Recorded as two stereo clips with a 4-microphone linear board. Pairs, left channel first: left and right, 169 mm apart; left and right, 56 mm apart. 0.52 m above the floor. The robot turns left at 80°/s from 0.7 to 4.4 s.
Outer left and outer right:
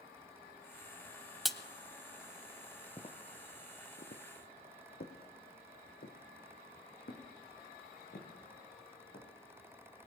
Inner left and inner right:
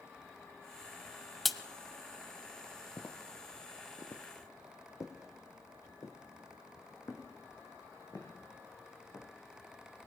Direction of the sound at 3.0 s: 30° left (ahead or behind).